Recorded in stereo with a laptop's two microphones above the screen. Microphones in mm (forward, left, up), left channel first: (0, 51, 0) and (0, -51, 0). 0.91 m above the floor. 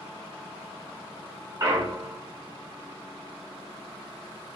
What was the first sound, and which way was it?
A clunk, 30° right (ahead or behind).